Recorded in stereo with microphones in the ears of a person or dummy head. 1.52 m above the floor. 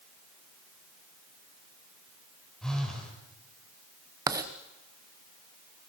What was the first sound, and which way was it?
A phone buzzing, centre (ahead or behind).